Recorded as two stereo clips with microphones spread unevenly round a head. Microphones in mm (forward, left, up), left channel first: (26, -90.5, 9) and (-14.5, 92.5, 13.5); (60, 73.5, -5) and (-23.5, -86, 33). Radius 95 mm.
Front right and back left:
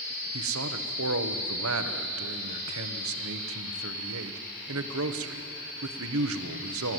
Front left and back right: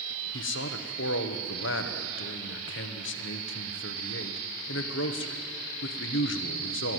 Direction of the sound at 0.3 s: 90° left.